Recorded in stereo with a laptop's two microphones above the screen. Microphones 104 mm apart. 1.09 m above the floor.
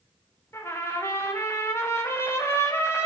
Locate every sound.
0.5 s a trumpet: 25° left (ahead or behind), 0.6 m